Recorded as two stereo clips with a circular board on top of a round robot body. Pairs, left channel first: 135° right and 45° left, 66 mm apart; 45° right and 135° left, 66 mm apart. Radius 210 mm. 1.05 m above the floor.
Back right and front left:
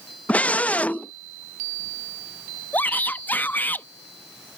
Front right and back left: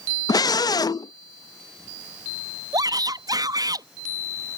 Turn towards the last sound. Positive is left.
turn(degrees=160)